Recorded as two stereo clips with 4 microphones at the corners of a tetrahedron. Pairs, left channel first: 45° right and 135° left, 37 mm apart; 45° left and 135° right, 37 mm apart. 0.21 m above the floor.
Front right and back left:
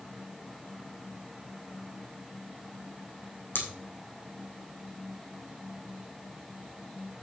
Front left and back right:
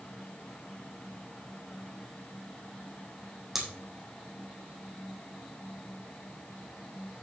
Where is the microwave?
I don't hear a microwave.